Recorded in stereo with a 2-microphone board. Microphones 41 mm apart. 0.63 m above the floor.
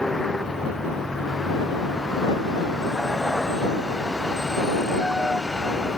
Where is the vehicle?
5° left (ahead or behind).